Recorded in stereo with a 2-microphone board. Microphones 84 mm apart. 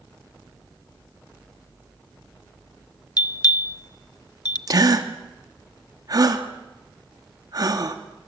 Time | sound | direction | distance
3.2 | a bell | 55° left (ahead or behind) | 0.9 m
4.7 | a gasp | 45° right (ahead or behind) | 1.9 m